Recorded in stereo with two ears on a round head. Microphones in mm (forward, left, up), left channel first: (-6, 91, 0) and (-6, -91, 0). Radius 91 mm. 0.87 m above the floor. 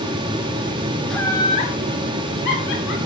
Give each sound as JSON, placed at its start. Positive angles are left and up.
{"t": 1.1, "sound": "laughter", "side_deg": 0, "distance_m": 1.0}